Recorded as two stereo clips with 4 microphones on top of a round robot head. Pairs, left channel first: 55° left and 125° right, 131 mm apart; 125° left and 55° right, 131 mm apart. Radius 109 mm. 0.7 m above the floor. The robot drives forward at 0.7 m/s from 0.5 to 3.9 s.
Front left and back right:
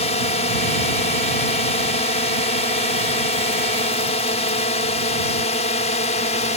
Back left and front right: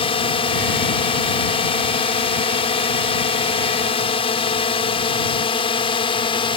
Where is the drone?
85° left; by 6.6 s 80° left.